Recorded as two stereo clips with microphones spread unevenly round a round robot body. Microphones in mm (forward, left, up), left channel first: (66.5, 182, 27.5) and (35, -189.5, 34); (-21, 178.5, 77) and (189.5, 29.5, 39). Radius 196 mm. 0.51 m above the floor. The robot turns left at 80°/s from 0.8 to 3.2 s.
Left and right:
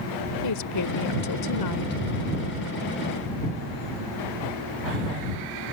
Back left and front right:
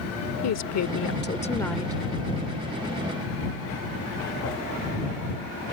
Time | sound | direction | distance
0.4 | a woman speaking | 125° left | ?